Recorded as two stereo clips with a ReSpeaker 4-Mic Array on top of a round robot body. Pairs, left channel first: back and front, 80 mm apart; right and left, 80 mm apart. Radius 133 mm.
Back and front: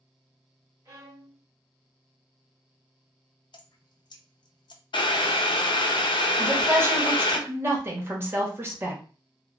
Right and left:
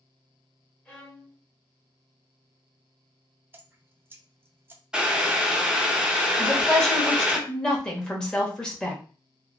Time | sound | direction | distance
0.8 | a violin | 30° right | 1.5 m
3.5 | dripping | 155° left | 0.5 m
4.9 | boiling | 170° left | 0.6 m
6.4 | a woman speaking | 15° right | 1.4 m